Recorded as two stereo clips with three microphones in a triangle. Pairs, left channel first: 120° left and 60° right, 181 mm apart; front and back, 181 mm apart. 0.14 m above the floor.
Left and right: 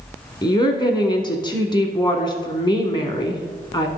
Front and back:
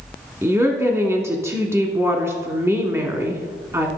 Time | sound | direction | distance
0.4 | a woman speaking | 130° left | 1.1 m